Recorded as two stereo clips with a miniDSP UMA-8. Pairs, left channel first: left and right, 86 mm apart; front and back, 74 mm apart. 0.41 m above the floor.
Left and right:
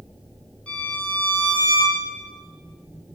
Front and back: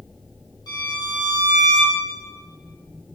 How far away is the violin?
About 4.5 m.